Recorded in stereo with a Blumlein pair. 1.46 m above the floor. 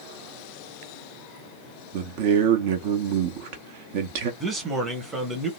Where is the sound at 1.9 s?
50° right, 0.8 m.